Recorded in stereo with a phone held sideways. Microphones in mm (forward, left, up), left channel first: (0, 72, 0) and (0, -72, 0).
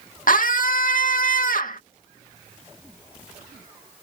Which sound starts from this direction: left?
A scream, at 0.3 s.